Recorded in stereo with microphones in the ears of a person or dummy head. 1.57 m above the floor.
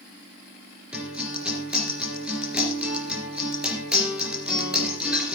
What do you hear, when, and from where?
0.9 s a guitar: 5° right (ahead or behind), 4 m